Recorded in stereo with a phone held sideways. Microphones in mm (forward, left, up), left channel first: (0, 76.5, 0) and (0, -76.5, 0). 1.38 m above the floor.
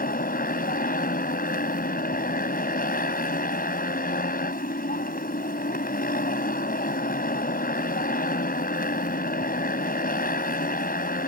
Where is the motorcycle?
75° left (ahead or behind).